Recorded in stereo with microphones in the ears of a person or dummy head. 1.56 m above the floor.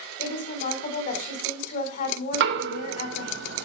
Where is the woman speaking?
50° left (ahead or behind), 5 m.